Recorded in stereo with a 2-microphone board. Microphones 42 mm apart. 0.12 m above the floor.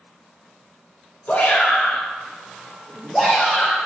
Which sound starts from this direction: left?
A shout, at 1.3 s.